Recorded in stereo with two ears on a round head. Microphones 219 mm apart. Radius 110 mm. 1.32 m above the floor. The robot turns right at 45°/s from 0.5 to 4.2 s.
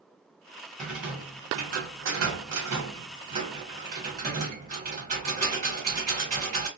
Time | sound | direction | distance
0.8 | a rattle | 175° left | 1.2 m